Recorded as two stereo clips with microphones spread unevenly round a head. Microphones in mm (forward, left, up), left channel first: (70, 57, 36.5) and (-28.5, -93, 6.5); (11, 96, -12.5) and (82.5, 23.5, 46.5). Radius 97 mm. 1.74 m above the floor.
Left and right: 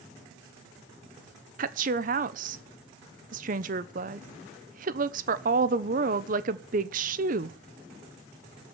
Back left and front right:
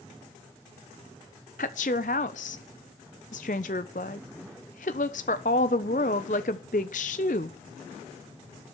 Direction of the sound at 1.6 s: 175° right.